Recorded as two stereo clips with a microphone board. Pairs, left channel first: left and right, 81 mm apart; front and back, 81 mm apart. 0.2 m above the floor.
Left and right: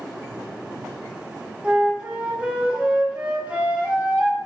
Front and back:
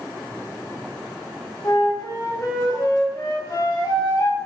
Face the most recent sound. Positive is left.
turn(degrees=-20)